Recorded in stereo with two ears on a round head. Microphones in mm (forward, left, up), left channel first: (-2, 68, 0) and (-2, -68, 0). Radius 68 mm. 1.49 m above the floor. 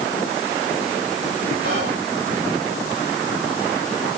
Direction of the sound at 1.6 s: 80° right.